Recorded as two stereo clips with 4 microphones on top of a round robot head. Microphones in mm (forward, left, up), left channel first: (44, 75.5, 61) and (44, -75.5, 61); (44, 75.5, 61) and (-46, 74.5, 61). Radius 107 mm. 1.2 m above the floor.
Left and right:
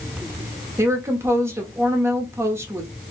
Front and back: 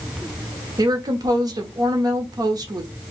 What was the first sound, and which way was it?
A woman speaking, 155° right.